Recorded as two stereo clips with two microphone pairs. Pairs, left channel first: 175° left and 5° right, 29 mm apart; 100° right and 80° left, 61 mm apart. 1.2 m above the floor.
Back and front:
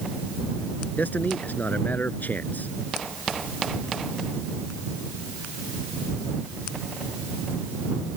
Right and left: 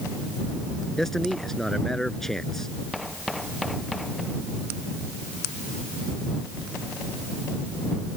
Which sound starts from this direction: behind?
A man speaking, at 1.0 s.